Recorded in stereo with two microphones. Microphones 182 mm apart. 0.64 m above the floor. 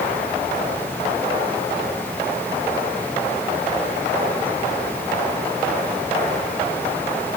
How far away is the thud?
No thud in this recording.